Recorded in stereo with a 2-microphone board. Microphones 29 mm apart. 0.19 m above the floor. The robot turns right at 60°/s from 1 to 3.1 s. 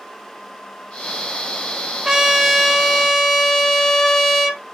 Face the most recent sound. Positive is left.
turn(degrees=10)  # may be behind; listen again after turning